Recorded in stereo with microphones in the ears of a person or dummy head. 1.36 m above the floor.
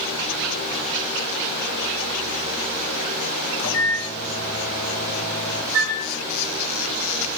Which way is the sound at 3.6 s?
65° left (ahead or behind).